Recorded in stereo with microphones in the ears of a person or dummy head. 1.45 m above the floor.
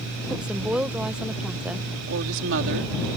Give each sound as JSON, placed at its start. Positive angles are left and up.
{"t": 0.3, "sound": "a woman speaking", "side_deg": -5}
{"t": 2.1, "sound": "a woman speaking", "side_deg": -70}